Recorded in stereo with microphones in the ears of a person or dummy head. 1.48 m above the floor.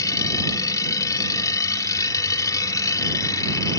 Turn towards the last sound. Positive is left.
turn(degrees=20)  # may be behind; listen again after turning